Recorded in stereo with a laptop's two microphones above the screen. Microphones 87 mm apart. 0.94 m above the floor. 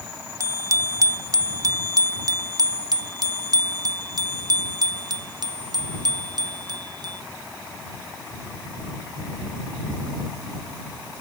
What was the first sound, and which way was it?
A bicycle bell, 35° right (ahead or behind).